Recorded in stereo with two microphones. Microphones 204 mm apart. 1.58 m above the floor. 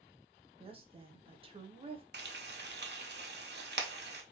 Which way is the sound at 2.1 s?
55° right (ahead or behind).